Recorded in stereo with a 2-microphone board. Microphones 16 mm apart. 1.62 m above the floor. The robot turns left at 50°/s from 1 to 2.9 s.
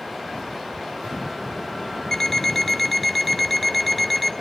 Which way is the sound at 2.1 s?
55° left.